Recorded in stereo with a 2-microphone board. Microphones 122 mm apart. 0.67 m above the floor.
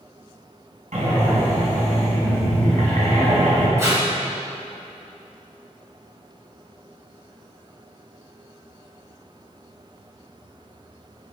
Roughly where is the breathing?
Right.